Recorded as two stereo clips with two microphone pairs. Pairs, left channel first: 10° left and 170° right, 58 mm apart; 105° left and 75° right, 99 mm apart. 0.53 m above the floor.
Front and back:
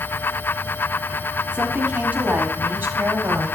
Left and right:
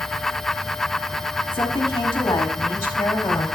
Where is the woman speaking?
140° left, 1.4 m; by 3.5 s 170° left, 2 m.